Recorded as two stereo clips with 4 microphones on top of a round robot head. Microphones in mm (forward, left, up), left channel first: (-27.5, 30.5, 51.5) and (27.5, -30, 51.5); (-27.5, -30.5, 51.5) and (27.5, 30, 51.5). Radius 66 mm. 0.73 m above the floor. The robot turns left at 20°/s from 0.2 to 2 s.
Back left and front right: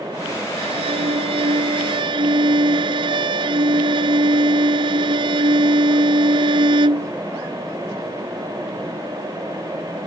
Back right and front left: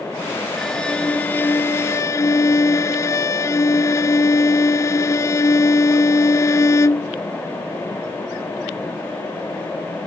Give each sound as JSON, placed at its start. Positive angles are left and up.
{"t": 0.6, "sound": "a violin", "azimuth_deg": -45}